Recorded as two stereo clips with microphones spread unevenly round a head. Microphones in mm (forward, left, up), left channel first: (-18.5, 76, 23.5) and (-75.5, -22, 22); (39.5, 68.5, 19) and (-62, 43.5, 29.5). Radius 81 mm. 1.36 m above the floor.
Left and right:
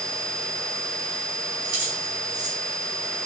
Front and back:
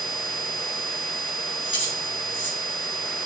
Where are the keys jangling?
35° right, 3 m.